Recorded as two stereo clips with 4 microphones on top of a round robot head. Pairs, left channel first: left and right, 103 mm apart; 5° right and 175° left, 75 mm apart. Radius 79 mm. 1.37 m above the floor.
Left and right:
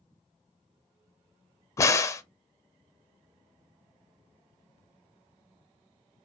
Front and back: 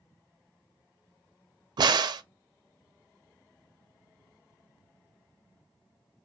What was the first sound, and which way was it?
A crack, 150° left.